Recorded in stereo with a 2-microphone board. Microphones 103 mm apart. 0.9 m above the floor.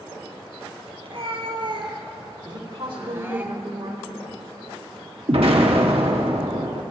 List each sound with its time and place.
1.0 s a cat meowing: 55° right (ahead or behind), 2.5 m; by 3.5 s 15° right (ahead or behind), 1.1 m
2.5 s a woman speaking: 55° right (ahead or behind), 3 m
5.3 s an explosion: 65° right (ahead or behind), 1.7 m